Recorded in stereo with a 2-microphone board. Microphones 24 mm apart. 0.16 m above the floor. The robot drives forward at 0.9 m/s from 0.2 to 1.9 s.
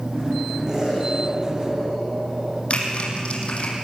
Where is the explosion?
25° right (ahead or behind), 7 m; by 2.6 s 30° right (ahead or behind), 6 m.